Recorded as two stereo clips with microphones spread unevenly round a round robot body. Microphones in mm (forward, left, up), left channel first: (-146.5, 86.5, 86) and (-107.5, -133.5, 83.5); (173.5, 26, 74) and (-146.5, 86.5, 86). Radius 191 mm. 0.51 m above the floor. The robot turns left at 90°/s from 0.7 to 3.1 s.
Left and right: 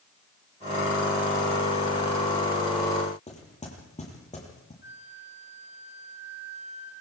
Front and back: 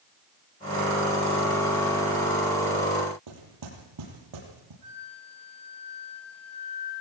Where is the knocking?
160° left, 9.5 m.